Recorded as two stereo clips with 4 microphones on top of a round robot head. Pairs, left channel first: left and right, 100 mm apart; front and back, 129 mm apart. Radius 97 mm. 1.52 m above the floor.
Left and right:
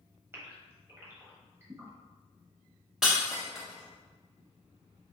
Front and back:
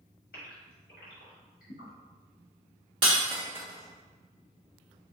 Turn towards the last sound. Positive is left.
turn(degrees=-175)